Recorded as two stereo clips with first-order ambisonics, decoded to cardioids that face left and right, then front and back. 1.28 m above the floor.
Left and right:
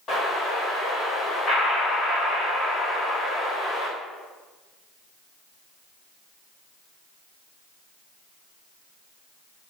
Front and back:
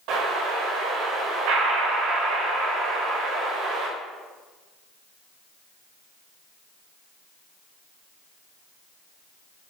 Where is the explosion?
150° left, 3.5 m.